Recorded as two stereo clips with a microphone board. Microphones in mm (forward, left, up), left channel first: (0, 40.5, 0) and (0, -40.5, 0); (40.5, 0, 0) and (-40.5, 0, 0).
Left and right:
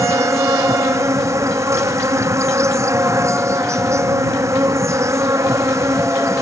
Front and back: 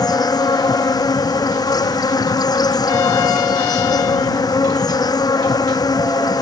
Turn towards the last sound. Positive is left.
turn(degrees=-40)